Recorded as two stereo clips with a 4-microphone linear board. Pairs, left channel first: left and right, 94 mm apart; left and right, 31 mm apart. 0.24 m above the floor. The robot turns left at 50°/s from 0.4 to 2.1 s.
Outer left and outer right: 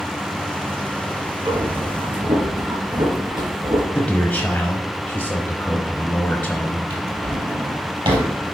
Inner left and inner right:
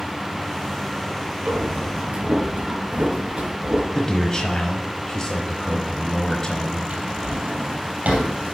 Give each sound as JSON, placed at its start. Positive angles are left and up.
{"t": 1.4, "sound": "breathing", "side_deg": -65, "distance_m": 3.5}
{"t": 4.0, "sound": "a man speaking", "side_deg": 15, "distance_m": 1.0}
{"t": 6.9, "sound": "a drawer", "side_deg": -65, "distance_m": 2.5}